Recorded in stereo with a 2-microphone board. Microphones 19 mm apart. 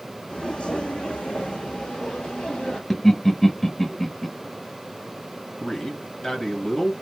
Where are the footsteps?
55° left (ahead or behind), 0.8 m; by 2.8 s 75° left (ahead or behind), 1.8 m.